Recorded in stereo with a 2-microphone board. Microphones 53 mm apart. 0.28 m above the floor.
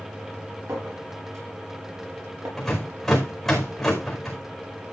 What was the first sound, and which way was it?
A clink, 75° right (ahead or behind).